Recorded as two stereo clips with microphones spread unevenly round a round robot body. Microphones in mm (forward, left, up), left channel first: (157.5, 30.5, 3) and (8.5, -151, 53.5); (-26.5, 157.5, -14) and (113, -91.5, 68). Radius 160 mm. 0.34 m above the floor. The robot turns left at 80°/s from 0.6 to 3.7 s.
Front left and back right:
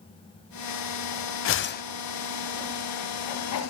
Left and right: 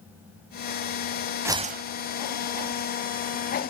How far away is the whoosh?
About 0.6 m.